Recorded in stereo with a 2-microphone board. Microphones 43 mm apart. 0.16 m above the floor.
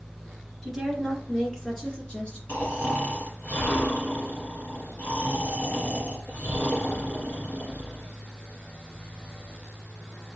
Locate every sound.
0.6 s a woman speaking: 5° left (ahead or behind), 2.5 m; by 2.4 s 25° left (ahead or behind), 2 m
2.5 s snoring: 40° left (ahead or behind), 2.5 m